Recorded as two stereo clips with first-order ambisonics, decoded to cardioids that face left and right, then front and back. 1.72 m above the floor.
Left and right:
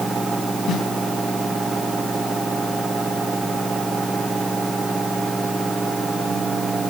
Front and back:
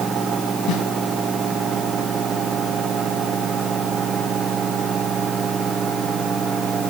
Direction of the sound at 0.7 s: 40° left.